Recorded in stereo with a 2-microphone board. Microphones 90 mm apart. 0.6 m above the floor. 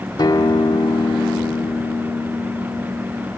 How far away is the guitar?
About 1.1 m.